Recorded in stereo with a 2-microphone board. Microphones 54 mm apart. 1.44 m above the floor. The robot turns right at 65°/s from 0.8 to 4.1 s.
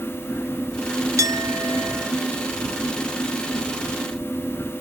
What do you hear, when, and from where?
1.2 s a clink: 90° right; by 2.1 s 30° right